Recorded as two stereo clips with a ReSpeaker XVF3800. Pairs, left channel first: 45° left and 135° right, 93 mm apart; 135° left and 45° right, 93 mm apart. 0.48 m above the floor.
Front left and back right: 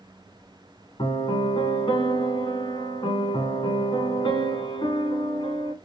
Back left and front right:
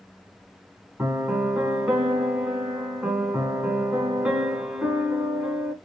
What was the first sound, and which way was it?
A piano, 30° left.